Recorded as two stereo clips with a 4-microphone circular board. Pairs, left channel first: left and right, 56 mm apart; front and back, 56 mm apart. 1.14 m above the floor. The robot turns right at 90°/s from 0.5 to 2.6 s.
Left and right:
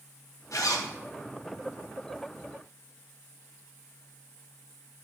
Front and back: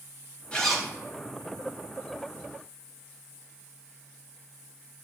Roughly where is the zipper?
Left.